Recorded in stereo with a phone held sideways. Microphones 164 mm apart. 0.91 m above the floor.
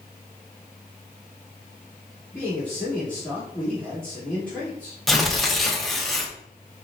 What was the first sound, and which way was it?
A man speaking, 10° left (ahead or behind).